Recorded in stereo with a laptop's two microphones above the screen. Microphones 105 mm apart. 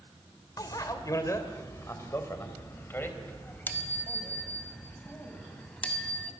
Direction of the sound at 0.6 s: 35° left (ahead or behind).